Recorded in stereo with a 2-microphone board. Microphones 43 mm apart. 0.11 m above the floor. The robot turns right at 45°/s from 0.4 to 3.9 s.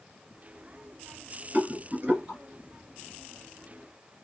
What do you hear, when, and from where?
1.5 s a rattle: 35° right (ahead or behind), 1.7 m; by 2.4 s 20° right (ahead or behind), 1.7 m